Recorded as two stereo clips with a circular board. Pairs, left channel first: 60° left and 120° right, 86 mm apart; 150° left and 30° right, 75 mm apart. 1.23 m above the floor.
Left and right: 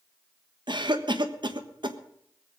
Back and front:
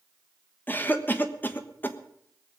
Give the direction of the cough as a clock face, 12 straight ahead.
5 o'clock.